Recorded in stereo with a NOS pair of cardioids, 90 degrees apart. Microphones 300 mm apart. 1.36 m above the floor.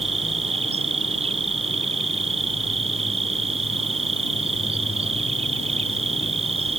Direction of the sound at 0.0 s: 20° right.